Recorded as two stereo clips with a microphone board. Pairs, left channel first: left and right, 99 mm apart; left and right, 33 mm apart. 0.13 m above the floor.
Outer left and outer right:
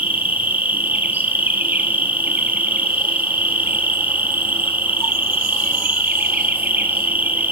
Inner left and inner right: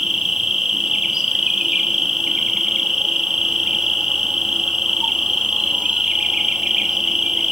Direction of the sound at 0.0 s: 20° right (ahead or behind).